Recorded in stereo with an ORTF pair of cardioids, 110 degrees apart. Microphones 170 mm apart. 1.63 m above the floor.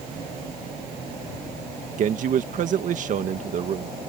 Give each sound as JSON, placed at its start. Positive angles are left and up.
{"t": 2.0, "sound": "a man speaking", "azimuth_deg": -55}